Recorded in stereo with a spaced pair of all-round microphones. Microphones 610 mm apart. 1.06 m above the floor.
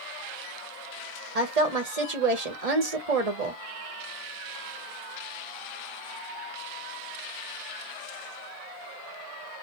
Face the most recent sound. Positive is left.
turn(degrees=-80)